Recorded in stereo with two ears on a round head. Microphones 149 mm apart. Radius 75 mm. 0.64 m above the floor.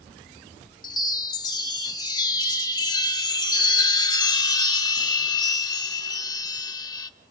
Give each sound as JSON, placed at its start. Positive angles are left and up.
{"t": 0.8, "sound": "a chime", "side_deg": 25, "distance_m": 0.9}